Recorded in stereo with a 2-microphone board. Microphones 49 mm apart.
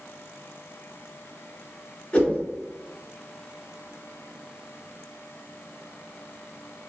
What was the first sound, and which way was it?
A whoosh, 25° left (ahead or behind).